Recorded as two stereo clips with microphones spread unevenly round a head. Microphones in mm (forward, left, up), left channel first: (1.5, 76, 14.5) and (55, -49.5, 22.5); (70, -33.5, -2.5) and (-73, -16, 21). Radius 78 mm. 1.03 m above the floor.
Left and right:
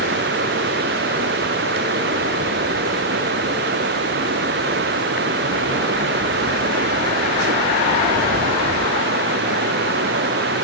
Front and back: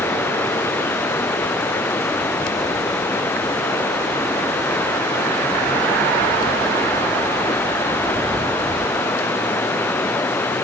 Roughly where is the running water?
Right.